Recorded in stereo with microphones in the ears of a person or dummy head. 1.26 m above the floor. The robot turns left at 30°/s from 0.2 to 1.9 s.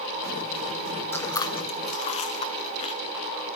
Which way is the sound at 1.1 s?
15° left (ahead or behind).